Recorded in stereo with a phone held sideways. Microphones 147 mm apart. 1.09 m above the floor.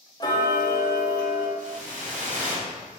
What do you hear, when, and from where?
0.2 s ticking: 30° left (ahead or behind), 0.7 m
1.6 s a whoosh: 60° right (ahead or behind), 1.3 m